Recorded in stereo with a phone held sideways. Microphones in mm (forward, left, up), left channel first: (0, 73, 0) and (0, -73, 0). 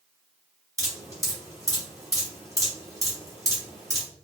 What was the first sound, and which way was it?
Dripping, 25° right (ahead or behind).